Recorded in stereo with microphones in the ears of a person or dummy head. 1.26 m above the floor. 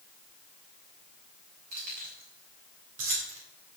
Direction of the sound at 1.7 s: 45° right (ahead or behind).